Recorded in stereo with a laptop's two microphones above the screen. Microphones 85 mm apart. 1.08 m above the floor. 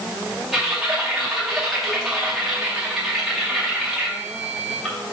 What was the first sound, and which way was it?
Typing on a keyboard, 5° right (ahead or behind).